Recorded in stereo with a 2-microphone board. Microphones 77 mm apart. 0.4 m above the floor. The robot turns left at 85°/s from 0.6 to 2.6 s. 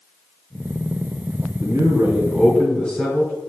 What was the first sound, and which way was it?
A man speaking, 105° right.